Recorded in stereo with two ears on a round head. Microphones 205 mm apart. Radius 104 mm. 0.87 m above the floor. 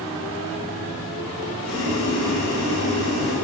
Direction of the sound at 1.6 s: 80° left.